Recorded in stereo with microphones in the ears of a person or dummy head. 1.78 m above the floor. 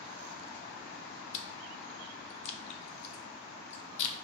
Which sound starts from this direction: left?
Chewing, at 1.3 s.